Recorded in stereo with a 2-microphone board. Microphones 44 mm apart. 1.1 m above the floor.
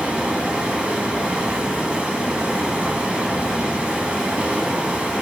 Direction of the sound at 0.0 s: 30° right (ahead or behind).